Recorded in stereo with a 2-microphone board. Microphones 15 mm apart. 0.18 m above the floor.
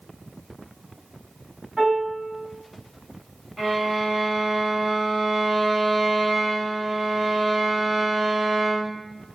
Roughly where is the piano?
Centre.